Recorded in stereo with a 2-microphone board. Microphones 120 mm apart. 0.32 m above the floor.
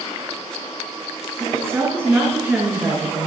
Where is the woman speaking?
25° right (ahead or behind), 2.5 m; by 3.3 s 10° right (ahead or behind), 5.5 m.